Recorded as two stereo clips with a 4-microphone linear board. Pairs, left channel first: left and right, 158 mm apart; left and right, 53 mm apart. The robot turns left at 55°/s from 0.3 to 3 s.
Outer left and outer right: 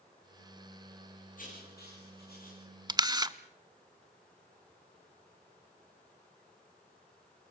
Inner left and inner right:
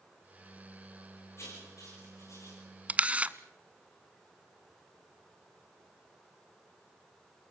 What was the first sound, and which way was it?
Writing, 55° left (ahead or behind).